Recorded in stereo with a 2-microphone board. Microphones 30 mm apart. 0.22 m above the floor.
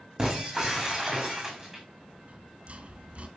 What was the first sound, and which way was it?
Breaking glass, 15° right (ahead or behind).